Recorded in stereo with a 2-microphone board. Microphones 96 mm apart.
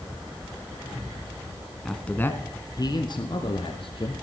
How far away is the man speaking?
About 1.1 m.